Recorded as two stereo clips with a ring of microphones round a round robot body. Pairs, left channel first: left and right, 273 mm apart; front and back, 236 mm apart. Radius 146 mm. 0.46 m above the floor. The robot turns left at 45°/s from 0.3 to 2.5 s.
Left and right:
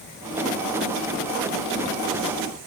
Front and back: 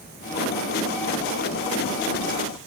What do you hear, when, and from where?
Only background noise.